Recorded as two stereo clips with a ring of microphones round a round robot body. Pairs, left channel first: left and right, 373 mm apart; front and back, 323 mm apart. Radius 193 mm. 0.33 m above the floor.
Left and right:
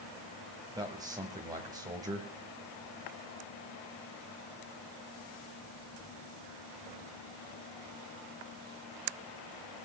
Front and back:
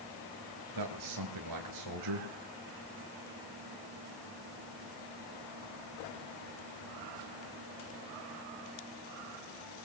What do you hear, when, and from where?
0.8 s a man speaking: 170° right, 1.8 m